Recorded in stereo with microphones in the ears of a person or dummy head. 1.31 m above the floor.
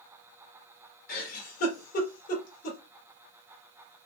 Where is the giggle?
50° left (ahead or behind), 1.5 m.